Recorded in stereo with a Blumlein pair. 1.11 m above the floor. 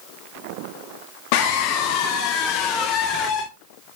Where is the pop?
No pop in this recording.